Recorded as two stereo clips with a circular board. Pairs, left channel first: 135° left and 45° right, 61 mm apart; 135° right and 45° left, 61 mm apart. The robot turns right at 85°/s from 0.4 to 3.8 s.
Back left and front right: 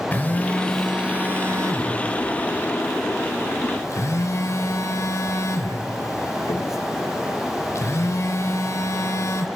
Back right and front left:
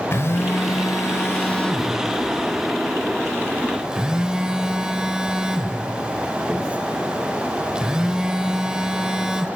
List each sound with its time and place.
0.1 s a phone buzzing: 170° right, 1.4 m; by 9.5 s 120° left, 1.4 m